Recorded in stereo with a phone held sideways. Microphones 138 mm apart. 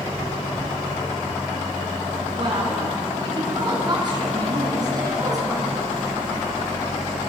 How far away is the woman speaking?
About 7.5 m.